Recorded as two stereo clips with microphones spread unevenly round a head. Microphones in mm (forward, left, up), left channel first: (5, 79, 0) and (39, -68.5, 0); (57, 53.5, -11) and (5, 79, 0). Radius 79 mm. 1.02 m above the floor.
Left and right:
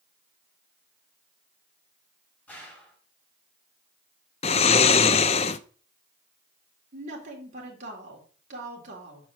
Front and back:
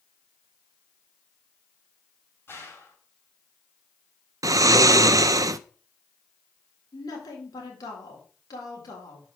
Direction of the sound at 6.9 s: 35° right.